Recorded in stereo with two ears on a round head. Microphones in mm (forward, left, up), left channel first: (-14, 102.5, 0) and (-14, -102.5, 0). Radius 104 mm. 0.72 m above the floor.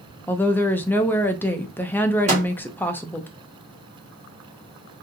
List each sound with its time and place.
0.3 s a woman speaking: 10° left (ahead or behind), 0.5 m
2.3 s a microwave: 30° right (ahead or behind), 1.6 m